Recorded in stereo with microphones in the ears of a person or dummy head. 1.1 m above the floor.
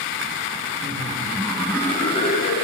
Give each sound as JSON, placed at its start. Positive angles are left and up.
{"t": 0.8, "sound": "laughter", "side_deg": -40, "distance_m": 1.0}